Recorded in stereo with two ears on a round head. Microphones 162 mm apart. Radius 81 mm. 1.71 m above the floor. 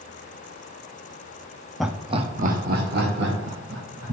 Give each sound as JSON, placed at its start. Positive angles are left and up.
{"t": 1.8, "sound": "laughter", "side_deg": 0, "distance_m": 0.5}